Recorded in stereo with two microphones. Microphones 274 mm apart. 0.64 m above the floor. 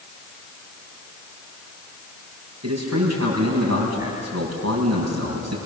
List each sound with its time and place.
2.6 s a man speaking: 70° right (ahead or behind), 6 m